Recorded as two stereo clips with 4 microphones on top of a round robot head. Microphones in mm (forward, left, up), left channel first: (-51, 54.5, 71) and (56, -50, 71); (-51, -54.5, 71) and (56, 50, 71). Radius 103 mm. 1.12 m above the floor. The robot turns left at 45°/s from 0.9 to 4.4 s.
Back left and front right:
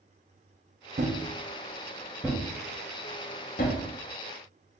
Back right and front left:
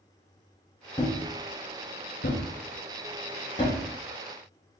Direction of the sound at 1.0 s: 70° right.